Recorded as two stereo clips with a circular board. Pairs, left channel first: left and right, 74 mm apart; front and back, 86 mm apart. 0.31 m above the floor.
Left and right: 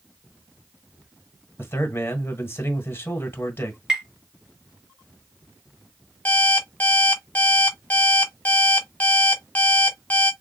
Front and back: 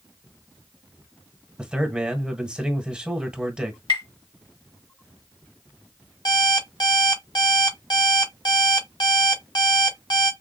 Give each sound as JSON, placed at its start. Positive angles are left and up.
{"t": 1.6, "sound": "a man speaking", "azimuth_deg": 105, "distance_m": 1.6}
{"t": 3.9, "sound": "tapping", "azimuth_deg": -5, "distance_m": 3.0}
{"t": 6.2, "sound": "an alarm clock", "azimuth_deg": 25, "distance_m": 1.3}